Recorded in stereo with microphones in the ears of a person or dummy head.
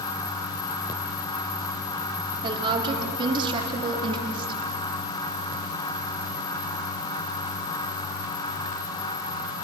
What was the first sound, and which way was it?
A woman speaking, 25° right (ahead or behind).